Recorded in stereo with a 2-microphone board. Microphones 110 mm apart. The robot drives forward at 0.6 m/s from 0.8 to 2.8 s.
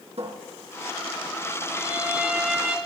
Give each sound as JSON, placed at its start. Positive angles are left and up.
{"t": 0.2, "sound": "a cupboard door", "side_deg": -70, "distance_m": 3.5}
{"t": 1.7, "sound": "a violin", "side_deg": -20, "distance_m": 3.0}